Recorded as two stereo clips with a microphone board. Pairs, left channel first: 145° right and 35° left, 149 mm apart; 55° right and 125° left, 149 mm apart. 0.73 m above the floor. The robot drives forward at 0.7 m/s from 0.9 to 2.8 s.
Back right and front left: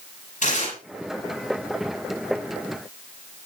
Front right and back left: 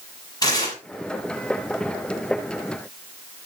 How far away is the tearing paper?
About 8.5 m.